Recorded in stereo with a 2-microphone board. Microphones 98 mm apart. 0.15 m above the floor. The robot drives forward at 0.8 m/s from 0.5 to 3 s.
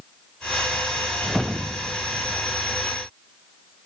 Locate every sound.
1.2 s a whoosh: centre (ahead or behind)